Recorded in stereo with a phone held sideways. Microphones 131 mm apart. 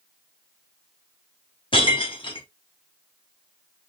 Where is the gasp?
I don't hear a gasp.